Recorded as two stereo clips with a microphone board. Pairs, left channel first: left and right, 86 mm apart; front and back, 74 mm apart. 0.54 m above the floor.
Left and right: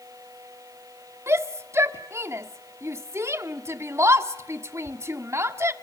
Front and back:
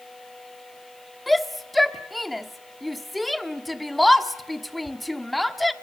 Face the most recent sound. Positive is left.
turn(degrees=-90)